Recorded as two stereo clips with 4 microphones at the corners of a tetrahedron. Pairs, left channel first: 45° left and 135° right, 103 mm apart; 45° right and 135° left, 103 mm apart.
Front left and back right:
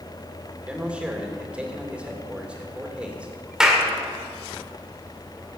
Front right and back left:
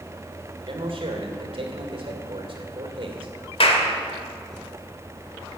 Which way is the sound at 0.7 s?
145° left.